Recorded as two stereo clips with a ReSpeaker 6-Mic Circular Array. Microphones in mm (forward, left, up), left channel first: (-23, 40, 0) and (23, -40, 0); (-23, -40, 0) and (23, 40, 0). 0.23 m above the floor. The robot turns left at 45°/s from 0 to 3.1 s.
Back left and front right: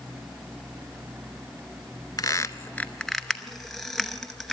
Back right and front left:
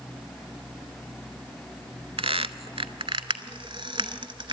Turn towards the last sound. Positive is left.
turn(degrees=35)